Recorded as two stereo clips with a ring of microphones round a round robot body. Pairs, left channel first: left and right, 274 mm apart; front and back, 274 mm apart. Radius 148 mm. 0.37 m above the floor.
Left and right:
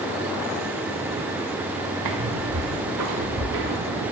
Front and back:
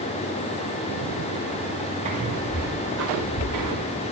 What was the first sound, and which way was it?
Footsteps, 110° right.